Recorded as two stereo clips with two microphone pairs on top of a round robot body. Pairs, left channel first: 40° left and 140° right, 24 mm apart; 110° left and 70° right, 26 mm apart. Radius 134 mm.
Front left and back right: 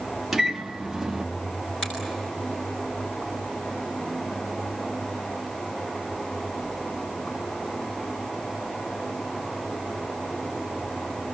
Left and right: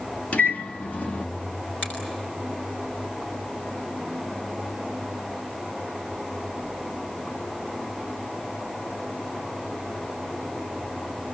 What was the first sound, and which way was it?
A microwave, 140° left.